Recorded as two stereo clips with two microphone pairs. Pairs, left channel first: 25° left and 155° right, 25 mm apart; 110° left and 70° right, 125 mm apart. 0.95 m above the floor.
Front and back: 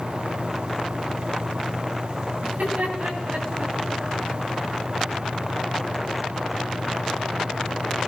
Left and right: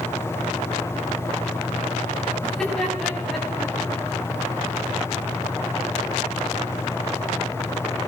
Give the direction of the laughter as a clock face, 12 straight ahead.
6 o'clock.